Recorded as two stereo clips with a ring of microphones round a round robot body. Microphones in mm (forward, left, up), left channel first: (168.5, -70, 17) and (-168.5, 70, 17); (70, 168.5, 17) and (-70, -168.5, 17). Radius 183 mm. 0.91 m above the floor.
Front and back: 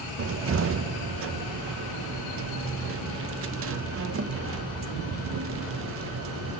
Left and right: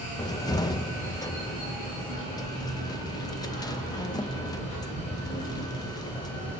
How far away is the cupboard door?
About 0.7 m.